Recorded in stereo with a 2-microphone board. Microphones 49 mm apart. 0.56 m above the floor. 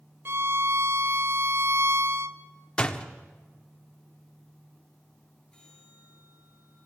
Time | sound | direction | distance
0.2 | a violin | 50° right (ahead or behind) | 0.6 m
2.8 | a door slam | 20° left (ahead or behind) | 0.9 m
5.5 | a bell | 10° left (ahead or behind) | 8.5 m